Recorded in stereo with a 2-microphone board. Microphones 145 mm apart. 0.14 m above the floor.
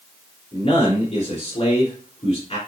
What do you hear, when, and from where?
0.5 s a man speaking: 40° left (ahead or behind), 2.5 m